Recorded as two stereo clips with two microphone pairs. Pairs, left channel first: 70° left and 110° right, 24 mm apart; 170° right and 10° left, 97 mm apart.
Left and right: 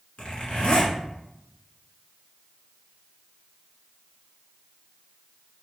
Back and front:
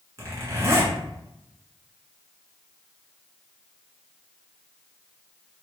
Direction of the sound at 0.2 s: 60° left.